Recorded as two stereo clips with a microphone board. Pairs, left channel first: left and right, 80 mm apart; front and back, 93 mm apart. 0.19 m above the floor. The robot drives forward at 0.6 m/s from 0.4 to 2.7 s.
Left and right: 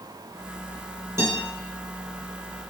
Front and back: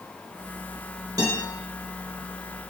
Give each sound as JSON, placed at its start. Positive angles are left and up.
{"t": 1.2, "sound": "a guitar", "azimuth_deg": -135, "distance_m": 2.0}